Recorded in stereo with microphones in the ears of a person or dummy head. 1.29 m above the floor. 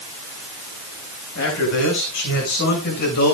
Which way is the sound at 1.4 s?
65° left (ahead or behind).